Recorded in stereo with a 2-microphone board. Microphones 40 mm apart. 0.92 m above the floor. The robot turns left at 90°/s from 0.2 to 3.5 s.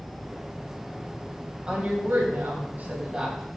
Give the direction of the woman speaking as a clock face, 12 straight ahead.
1 o'clock.